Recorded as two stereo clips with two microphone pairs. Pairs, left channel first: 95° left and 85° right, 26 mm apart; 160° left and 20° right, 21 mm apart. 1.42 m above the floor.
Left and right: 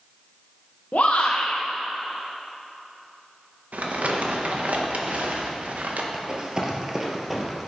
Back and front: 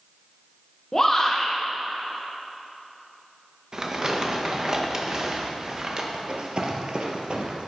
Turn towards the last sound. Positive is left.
turn(degrees=0)